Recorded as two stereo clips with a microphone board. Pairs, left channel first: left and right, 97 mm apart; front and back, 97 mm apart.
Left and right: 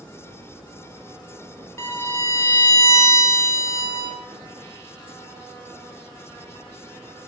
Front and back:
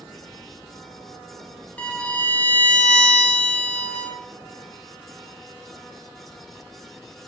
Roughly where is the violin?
Ahead left.